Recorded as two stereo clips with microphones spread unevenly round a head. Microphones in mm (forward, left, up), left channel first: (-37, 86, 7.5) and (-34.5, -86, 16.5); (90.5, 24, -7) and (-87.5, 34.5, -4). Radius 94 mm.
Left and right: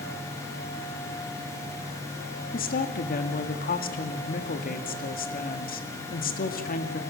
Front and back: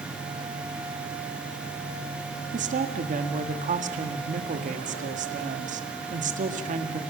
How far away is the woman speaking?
About 1.6 m.